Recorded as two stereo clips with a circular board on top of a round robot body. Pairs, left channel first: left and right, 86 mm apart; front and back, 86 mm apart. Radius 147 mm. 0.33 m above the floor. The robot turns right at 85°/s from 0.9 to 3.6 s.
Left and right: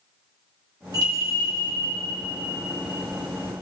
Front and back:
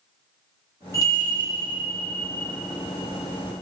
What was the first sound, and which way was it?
A bell, 50° right.